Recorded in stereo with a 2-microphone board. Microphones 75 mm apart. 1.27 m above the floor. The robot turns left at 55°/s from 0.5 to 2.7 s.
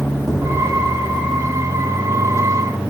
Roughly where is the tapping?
Centre.